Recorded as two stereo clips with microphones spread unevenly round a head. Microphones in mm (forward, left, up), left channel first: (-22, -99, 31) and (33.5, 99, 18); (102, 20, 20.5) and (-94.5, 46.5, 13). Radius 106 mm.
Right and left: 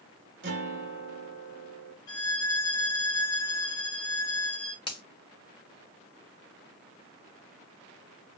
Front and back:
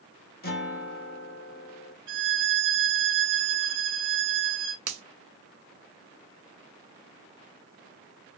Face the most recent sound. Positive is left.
turn(degrees=-175)